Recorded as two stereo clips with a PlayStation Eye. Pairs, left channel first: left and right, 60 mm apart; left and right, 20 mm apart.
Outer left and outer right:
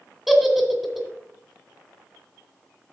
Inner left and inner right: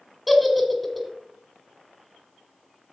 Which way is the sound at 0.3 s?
5° right (ahead or behind).